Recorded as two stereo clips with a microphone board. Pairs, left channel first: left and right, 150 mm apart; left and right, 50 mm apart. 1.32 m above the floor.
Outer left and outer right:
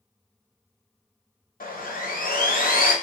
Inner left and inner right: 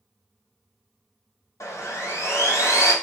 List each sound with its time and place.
1.6 s sawing: 75° left (ahead or behind), 0.7 m